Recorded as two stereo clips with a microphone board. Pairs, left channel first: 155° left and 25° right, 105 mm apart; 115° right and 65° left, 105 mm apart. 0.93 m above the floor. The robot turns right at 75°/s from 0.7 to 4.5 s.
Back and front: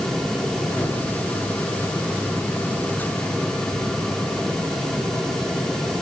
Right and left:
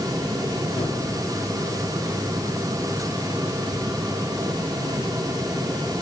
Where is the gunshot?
135° right, 3 m; by 1.0 s 120° right, 3 m.